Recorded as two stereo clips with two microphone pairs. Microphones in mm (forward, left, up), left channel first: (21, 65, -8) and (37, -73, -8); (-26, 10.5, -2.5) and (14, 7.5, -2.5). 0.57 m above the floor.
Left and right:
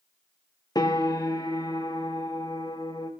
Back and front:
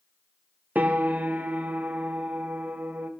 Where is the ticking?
I don't hear ticking.